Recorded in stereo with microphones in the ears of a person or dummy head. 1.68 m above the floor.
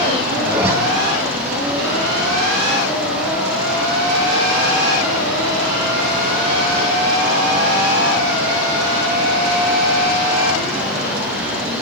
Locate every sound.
0.5 s a zipper: 15° right (ahead or behind), 4.5 m